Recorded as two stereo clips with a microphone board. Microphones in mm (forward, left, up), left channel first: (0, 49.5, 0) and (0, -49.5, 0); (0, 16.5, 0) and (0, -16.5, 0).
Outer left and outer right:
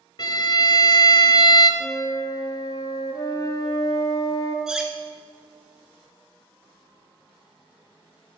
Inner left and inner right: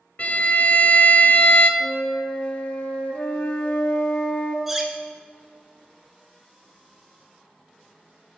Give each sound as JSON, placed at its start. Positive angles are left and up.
{"t": 0.2, "sound": "a violin", "side_deg": 45, "distance_m": 0.5}
{"t": 1.8, "sound": "a flute", "side_deg": 40, "distance_m": 0.7}
{"t": 4.7, "sound": "cutlery clinking", "side_deg": -5, "distance_m": 0.7}